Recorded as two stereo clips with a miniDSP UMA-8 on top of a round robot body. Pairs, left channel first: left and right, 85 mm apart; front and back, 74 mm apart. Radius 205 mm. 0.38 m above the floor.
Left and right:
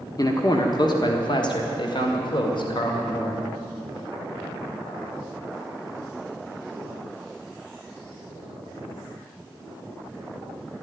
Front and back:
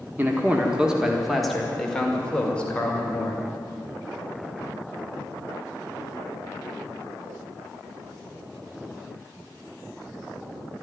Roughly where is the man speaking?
Behind left.